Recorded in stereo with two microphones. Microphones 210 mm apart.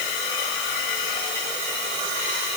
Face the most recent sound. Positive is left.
No sound to turn to.